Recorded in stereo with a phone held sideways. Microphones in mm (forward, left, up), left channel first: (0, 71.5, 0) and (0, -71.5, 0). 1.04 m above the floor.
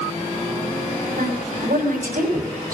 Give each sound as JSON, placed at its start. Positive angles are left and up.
{"t": 1.2, "sound": "a woman speaking", "side_deg": -80, "distance_m": 6.0}